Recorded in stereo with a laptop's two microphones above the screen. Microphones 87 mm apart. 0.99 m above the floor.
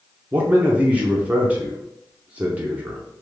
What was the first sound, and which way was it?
A man speaking, 15° right (ahead or behind).